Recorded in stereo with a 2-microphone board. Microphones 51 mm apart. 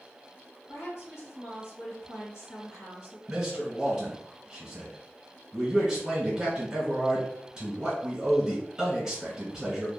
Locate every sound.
0.7 s a woman speaking: 60° left (ahead or behind), 1.4 m
3.3 s a man speaking: 15° right (ahead or behind), 1.1 m